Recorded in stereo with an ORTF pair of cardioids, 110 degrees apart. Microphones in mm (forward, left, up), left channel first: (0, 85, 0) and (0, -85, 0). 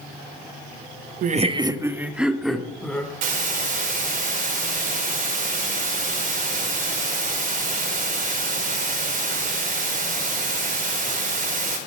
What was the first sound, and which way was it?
Laughter, 50° right.